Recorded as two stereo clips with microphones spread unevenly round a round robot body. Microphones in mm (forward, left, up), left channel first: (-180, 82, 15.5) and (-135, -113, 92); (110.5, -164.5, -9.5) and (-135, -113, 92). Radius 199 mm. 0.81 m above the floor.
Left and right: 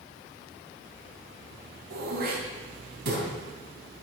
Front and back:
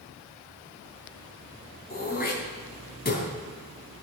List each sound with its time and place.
1.9 s throat clearing: 70° right, 3 m